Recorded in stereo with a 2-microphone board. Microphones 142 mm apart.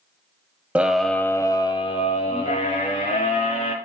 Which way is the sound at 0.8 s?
10° right (ahead or behind).